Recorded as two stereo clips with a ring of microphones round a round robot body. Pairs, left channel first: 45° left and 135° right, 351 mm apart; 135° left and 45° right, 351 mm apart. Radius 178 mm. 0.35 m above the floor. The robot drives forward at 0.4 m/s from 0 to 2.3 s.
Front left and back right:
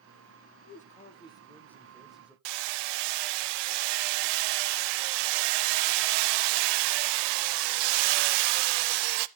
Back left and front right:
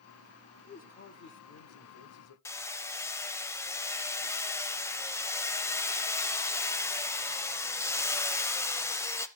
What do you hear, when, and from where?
0.7 s a man speaking: 85° left, 1.0 m; by 2.4 s 140° left, 1.2 m
2.5 s hammering: 145° right, 0.6 m